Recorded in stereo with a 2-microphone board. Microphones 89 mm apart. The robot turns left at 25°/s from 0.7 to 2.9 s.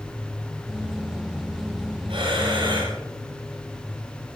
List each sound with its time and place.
2.1 s breathing: 85° right, 9 m; by 3.0 s 65° right (ahead or behind), 9 m